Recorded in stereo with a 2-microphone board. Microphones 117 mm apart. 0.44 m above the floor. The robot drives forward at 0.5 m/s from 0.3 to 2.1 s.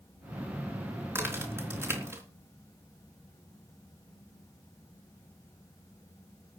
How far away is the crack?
About 4 m.